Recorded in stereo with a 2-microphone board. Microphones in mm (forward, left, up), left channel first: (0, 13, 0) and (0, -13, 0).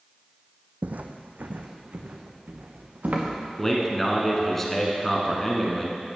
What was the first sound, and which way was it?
Footsteps, 60° right (ahead or behind).